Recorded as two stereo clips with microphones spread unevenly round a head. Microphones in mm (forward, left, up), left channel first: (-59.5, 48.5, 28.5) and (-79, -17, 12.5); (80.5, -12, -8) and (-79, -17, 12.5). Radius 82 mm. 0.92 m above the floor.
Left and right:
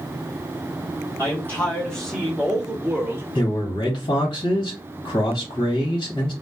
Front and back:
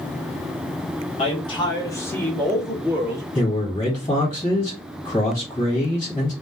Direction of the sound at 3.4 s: 55° left.